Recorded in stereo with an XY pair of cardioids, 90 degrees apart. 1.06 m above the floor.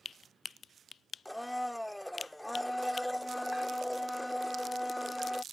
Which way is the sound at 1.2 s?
10° left.